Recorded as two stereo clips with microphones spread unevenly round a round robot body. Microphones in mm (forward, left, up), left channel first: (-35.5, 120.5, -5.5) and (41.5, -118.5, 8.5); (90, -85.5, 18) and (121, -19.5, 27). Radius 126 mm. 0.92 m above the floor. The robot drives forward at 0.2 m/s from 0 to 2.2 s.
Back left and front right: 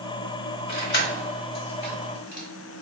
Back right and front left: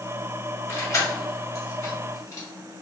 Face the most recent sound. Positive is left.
turn(degrees=165)